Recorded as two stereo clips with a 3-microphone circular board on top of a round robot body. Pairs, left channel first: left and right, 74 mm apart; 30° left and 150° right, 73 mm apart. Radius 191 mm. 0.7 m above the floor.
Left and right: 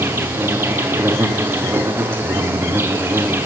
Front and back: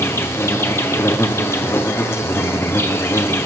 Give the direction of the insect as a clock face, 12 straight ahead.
1 o'clock.